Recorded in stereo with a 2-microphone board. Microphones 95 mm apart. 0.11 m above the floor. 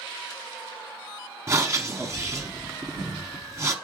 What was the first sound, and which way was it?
Breathing, 30° right (ahead or behind).